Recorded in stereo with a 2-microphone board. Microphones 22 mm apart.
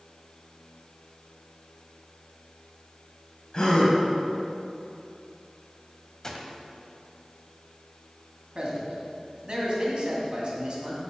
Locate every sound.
3.5 s a gasp: 35° left (ahead or behind), 1.8 m
6.2 s a gunshot: 25° left (ahead or behind), 0.9 m
8.6 s a man speaking: 45° right (ahead or behind), 2 m